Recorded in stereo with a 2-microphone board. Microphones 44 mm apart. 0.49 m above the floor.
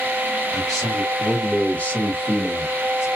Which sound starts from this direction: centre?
A man speaking, at 0.5 s.